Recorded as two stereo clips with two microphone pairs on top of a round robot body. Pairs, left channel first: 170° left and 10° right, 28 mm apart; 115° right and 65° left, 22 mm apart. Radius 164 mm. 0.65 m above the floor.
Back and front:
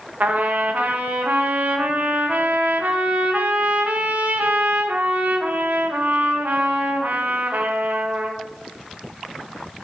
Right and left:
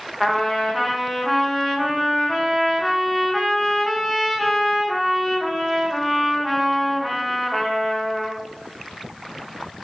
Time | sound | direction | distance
0.2 | a trumpet | 40° right | 0.9 m